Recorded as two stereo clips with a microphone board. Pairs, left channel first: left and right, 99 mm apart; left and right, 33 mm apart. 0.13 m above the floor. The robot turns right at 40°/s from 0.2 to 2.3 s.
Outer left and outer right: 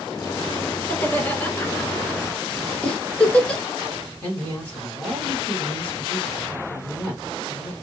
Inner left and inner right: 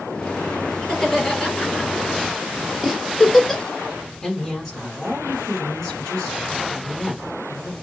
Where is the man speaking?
15° left (ahead or behind), 1.4 m.